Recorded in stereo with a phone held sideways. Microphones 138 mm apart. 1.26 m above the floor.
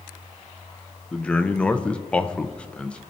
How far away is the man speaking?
About 0.6 m.